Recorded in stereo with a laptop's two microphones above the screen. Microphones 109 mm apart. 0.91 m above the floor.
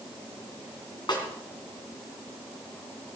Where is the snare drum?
45° left (ahead or behind), 3 m.